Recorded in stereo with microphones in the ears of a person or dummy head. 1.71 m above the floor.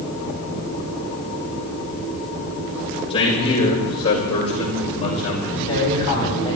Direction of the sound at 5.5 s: 25° left (ahead or behind).